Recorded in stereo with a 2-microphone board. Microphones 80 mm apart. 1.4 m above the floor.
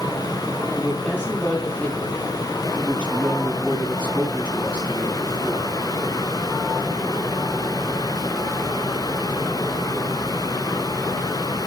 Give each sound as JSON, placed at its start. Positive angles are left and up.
{"t": 0.7, "sound": "a woman speaking", "side_deg": 15, "distance_m": 6.5}